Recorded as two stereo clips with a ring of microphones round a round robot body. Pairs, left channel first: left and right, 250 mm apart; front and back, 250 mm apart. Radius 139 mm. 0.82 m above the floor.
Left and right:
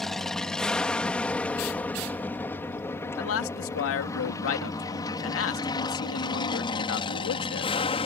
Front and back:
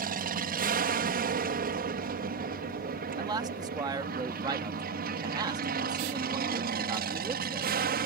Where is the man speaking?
105° left.